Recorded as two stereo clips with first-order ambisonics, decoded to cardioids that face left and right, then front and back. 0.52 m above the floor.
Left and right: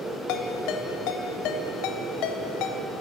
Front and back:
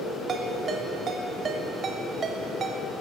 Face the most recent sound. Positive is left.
turn(degrees=115)